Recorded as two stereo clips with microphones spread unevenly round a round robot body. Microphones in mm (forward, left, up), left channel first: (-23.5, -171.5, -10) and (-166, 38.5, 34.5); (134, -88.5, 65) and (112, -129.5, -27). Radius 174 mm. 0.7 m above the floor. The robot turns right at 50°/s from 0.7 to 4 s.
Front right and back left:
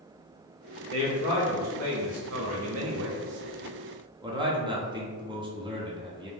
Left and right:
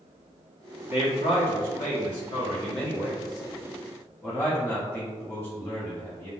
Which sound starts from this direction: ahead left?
A man speaking, at 0.9 s.